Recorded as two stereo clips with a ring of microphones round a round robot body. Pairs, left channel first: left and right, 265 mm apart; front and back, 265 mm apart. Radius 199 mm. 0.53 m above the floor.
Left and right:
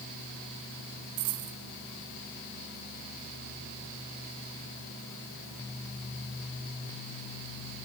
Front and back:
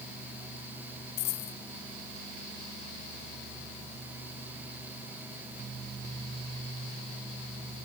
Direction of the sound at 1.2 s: 40° right.